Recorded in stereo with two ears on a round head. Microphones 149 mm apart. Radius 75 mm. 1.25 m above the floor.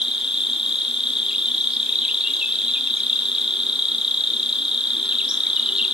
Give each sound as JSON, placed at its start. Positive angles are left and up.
{"t": 0.0, "sound": "an insect", "side_deg": -5, "distance_m": 1.1}